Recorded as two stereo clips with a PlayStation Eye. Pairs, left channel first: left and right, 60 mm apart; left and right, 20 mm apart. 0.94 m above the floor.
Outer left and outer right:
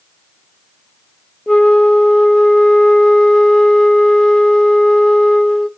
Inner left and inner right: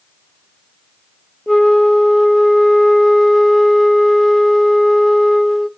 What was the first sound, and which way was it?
A flute, 10° left (ahead or behind).